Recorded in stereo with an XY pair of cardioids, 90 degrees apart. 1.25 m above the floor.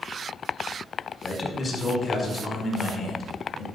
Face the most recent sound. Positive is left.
turn(degrees=50)